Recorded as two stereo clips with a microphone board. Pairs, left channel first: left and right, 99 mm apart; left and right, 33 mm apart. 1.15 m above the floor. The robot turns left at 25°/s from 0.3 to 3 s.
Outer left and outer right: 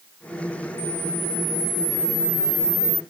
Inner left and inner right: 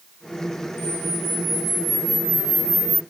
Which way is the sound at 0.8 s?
70° right.